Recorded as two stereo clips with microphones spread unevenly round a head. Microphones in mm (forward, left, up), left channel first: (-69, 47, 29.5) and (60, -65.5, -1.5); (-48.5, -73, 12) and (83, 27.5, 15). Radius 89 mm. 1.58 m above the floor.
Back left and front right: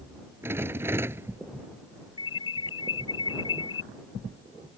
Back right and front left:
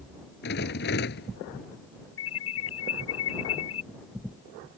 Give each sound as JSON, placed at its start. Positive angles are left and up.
{"t": 0.4, "sound": "a rattle", "azimuth_deg": -120}
{"t": 2.2, "sound": "an alarm", "azimuth_deg": -155}